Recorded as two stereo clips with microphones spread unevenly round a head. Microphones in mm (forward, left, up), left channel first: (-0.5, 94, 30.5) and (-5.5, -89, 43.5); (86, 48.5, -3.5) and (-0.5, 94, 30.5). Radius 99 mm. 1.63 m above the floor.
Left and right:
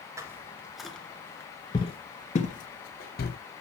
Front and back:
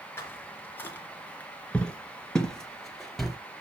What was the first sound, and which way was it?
Footsteps, 115° right.